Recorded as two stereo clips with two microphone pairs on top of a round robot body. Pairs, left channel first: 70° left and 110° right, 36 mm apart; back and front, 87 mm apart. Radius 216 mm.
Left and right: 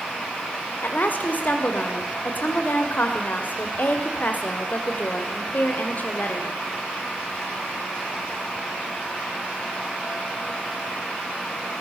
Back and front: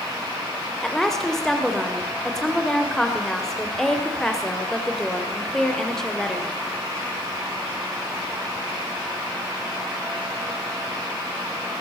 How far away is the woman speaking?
About 2.5 m.